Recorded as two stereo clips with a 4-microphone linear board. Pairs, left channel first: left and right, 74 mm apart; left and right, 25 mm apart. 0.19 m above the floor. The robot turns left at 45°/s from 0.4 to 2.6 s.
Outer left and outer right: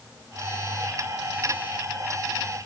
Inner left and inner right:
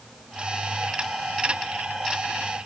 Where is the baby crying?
No baby crying in this recording.